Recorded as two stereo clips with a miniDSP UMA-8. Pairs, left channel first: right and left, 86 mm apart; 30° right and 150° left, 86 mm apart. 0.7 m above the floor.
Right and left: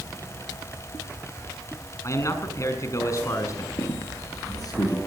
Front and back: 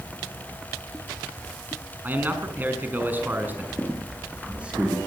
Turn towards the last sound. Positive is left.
turn(degrees=-135)